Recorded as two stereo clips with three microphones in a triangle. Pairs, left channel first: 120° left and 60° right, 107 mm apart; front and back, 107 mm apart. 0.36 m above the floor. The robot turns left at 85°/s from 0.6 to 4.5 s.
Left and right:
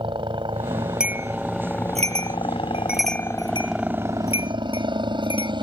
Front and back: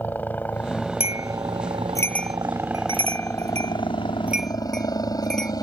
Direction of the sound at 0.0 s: 70° right.